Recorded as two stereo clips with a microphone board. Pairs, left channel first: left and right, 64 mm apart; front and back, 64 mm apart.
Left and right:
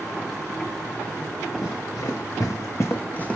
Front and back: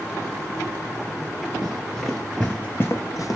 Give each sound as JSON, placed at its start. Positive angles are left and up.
{"t": 1.6, "sound": "running footsteps", "azimuth_deg": 95, "distance_m": 1.1}